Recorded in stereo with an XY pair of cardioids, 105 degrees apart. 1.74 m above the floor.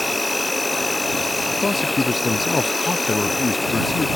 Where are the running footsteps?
I don't hear running footsteps.